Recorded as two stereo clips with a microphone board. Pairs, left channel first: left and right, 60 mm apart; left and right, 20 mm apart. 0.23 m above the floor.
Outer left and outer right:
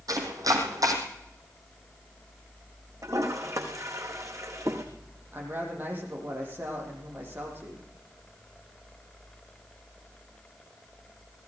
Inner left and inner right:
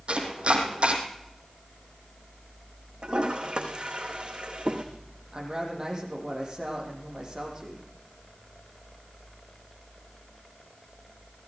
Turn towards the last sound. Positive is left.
turn(degrees=-30)  # may be behind; listen again after turning